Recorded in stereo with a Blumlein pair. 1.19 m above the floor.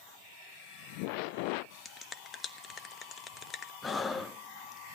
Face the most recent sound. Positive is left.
turn(degrees=15)